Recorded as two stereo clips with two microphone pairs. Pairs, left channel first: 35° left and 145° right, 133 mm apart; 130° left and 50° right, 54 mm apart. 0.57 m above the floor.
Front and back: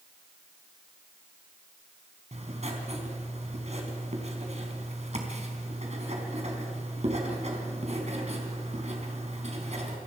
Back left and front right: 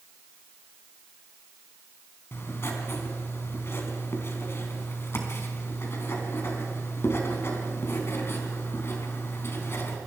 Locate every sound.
2.3 s writing: 175° left, 4 m